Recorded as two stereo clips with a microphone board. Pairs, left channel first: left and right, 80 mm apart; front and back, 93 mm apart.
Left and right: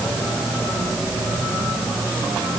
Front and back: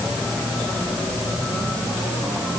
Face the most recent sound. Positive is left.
No sound to turn to.